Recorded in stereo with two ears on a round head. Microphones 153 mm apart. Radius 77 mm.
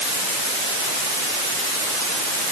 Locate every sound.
Only background noise.